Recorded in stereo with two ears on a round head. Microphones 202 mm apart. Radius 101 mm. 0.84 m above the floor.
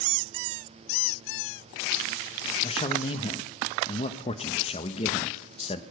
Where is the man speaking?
25° left (ahead or behind), 0.7 m.